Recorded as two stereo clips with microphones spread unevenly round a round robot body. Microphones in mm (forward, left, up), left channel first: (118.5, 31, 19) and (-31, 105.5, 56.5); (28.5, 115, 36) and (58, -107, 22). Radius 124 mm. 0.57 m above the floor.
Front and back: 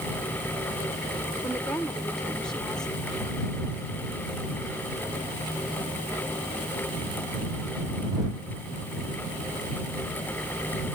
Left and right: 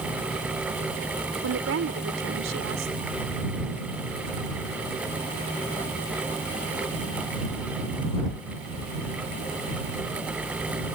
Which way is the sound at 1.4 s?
105° right.